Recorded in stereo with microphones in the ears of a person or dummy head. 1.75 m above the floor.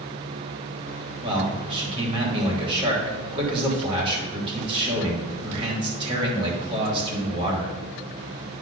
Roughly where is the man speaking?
Right.